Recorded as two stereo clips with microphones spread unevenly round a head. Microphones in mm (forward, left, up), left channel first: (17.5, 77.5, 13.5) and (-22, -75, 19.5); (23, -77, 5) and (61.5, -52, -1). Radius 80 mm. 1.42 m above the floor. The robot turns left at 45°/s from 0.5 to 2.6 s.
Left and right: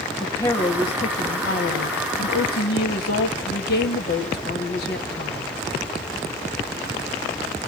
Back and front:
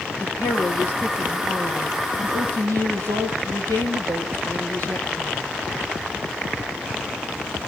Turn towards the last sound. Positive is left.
turn(degrees=50)